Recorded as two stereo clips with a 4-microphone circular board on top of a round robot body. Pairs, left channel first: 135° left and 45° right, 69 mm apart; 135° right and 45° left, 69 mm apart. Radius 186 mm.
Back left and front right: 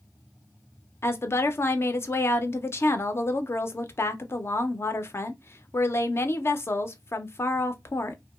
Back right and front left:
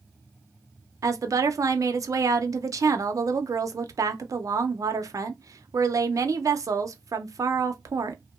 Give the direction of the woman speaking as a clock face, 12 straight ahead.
9 o'clock.